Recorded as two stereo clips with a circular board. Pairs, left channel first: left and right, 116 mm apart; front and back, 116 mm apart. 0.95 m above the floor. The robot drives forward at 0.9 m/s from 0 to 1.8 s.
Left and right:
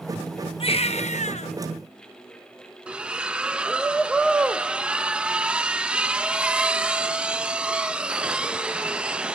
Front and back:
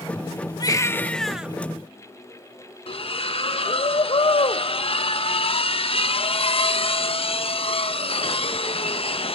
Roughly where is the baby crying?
Ahead left.